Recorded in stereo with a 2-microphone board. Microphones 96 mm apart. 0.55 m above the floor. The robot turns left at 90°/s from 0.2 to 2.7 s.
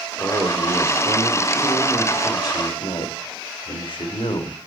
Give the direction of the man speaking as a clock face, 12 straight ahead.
1 o'clock.